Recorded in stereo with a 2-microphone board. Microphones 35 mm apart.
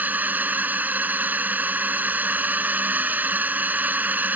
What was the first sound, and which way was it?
A drone, 60° right (ahead or behind).